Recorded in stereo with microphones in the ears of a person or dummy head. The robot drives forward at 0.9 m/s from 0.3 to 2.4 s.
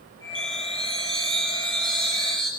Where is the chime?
Centre (ahead or behind), 0.7 m.